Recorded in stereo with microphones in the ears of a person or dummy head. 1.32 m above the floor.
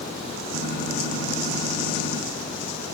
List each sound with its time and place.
0.5 s a gunshot: 65° left (ahead or behind), 9 m